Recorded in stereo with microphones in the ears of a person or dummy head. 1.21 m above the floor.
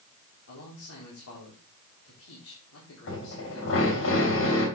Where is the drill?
75° left (ahead or behind), 3.5 m.